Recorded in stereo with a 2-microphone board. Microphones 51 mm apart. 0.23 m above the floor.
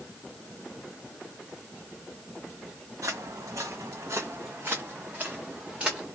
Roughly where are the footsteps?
Right.